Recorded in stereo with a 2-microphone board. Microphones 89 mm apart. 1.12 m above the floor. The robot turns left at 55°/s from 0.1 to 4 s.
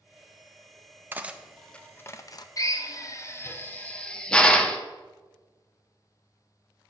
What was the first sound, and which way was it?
Cutlery clinking, 25° right (ahead or behind).